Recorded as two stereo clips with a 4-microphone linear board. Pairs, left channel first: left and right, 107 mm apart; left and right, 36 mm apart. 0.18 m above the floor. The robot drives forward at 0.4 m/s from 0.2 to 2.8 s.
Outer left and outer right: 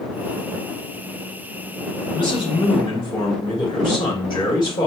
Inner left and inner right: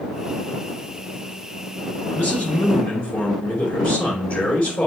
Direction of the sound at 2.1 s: 50° left (ahead or behind).